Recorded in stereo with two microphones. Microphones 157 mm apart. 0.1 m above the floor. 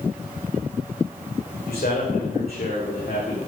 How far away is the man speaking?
About 9 m.